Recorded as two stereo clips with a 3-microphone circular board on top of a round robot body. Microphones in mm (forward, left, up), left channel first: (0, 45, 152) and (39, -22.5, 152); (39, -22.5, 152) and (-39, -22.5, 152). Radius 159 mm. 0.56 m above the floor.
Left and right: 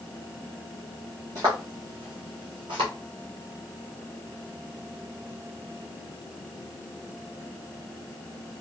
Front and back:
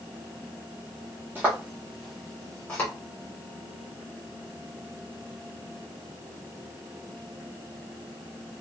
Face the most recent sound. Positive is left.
turn(degrees=-75)